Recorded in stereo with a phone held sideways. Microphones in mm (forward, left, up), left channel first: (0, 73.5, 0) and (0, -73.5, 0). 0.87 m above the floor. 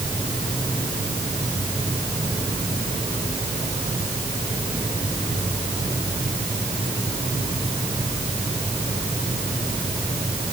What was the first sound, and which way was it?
Only background noise.